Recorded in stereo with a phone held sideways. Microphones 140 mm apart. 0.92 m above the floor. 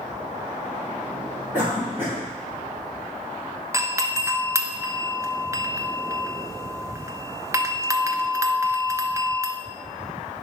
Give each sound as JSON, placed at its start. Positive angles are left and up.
{"t": 1.5, "sound": "a cough", "side_deg": -15, "distance_m": 3.0}
{"t": 3.7, "sound": "a doorbell", "side_deg": -20, "distance_m": 0.7}